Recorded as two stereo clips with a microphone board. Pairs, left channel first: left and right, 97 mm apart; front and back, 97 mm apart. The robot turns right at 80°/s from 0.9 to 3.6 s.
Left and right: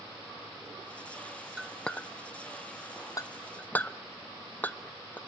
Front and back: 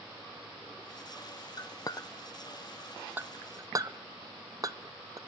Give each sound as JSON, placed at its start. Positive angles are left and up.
{"t": 1.6, "sound": "a clink", "azimuth_deg": -10, "distance_m": 0.5}